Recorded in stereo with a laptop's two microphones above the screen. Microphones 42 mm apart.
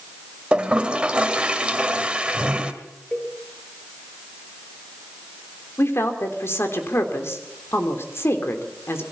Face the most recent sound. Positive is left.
turn(degrees=80)